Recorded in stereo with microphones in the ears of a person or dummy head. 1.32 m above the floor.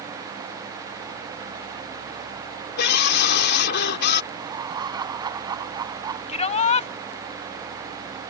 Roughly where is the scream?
Left.